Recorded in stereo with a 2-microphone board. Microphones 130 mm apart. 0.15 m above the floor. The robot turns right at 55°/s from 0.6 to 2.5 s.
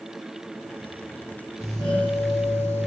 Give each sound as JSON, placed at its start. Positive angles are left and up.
{"t": 1.6, "sound": "a doorbell", "azimuth_deg": 25, "distance_m": 4.5}